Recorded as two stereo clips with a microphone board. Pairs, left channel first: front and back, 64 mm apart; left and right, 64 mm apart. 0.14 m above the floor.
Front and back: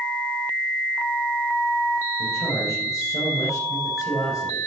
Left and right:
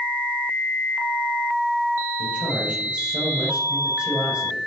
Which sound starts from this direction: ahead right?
A man speaking, at 2.2 s.